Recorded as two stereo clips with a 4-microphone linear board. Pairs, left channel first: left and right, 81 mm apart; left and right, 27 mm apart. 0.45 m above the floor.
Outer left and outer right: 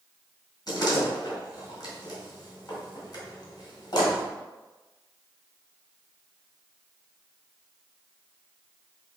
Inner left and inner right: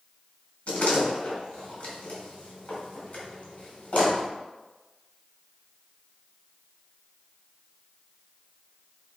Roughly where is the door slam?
Left.